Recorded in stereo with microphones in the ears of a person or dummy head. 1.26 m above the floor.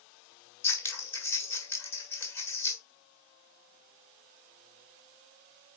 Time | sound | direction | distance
0.6 | scissors | 15° left (ahead or behind) | 1.6 m